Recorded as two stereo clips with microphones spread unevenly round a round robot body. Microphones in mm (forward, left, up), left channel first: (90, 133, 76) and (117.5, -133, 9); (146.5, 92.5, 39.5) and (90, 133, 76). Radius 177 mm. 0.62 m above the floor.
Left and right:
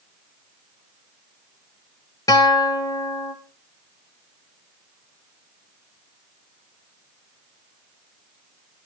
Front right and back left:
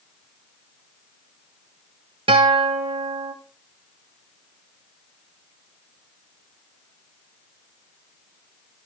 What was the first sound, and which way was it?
A guitar, straight behind.